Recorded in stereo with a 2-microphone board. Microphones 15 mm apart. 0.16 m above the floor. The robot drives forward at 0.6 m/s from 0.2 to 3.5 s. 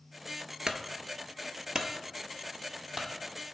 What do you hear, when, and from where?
0.7 s a clunk: 70° right (ahead or behind), 0.7 m; by 3.1 s 25° right (ahead or behind), 1.5 m